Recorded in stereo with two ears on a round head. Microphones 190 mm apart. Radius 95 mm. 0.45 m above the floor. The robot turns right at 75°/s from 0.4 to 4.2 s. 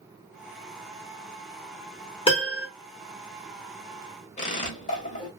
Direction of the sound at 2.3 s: 30° left.